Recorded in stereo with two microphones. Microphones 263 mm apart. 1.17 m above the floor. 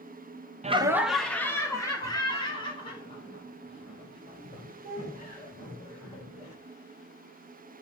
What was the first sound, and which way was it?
Laughter, 25° right (ahead or behind).